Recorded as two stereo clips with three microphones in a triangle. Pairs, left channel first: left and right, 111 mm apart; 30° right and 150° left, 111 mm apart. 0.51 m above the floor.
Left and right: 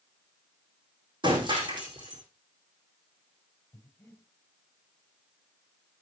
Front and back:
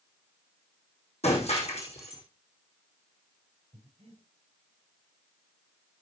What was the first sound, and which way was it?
Breaking glass, 50° right.